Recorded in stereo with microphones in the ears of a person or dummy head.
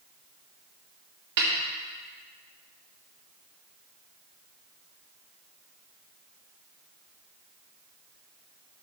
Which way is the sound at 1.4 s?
55° right (ahead or behind).